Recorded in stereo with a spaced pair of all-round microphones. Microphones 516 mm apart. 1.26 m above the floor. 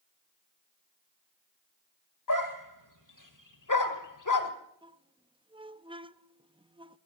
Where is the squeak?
10° right (ahead or behind), 0.6 m.